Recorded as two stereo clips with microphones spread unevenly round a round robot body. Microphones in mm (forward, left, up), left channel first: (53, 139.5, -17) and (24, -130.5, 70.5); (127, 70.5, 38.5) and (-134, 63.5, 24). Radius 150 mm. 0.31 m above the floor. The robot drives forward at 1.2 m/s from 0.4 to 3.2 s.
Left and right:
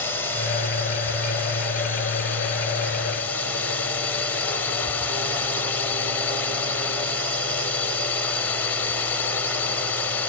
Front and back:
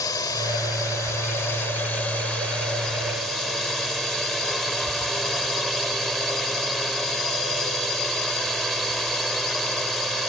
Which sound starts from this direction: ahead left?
A drone, at 0.0 s.